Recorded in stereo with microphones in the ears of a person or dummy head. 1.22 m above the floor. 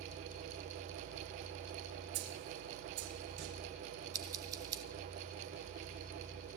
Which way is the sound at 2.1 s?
80° right.